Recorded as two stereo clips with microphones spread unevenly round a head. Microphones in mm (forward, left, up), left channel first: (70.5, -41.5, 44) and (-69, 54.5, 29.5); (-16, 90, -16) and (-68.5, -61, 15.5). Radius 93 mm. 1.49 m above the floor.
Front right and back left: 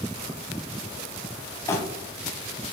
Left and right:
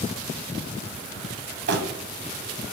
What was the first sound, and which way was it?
Crumpling, 110° right.